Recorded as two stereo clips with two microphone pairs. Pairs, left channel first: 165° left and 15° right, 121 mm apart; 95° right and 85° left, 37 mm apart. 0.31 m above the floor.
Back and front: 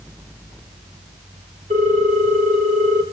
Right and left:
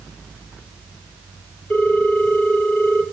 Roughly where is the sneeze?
No sneeze in this recording.